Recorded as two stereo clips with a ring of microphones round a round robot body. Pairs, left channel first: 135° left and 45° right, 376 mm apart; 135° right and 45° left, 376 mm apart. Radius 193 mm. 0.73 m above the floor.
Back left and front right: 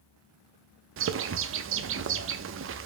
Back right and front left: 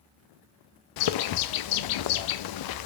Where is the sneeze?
I don't hear a sneeze.